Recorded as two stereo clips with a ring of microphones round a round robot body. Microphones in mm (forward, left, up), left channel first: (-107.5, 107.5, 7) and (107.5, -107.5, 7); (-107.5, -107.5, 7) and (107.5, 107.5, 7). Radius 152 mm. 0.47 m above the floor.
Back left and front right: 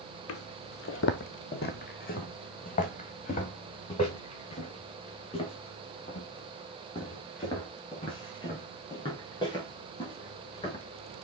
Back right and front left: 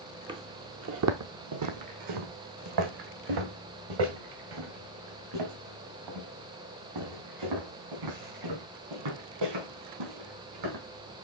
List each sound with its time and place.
0.3 s footsteps: 115° left, 0.5 m; by 10.8 s 60° left, 5.5 m